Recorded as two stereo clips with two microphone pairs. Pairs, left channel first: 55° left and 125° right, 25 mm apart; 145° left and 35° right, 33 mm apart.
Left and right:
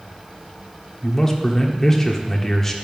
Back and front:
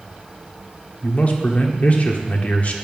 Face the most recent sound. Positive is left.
turn(degrees=125)